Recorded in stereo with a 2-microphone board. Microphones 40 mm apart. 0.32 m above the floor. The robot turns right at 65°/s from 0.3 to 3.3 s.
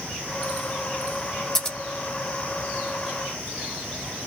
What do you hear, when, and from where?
1.6 s scissors: 15° left (ahead or behind), 1.0 m; by 1.8 s 20° left (ahead or behind), 1.0 m